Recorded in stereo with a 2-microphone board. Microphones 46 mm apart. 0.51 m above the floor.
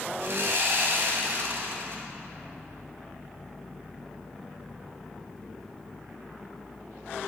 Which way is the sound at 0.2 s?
55° right (ahead or behind).